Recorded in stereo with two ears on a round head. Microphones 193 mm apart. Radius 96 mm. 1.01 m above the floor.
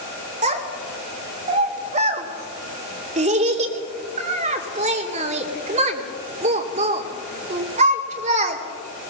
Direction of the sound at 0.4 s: 35° right (ahead or behind).